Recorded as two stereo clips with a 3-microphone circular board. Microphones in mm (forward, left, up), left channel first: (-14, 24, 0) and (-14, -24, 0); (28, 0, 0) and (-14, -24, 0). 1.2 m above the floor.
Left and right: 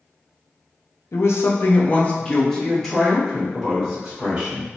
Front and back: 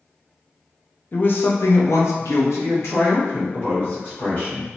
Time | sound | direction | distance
1.1 | a woman speaking | 80° left | 0.6 m